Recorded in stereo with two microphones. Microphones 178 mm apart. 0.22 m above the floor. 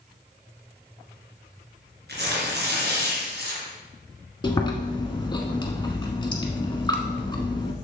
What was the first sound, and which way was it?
Tearing paper, 70° right (ahead or behind).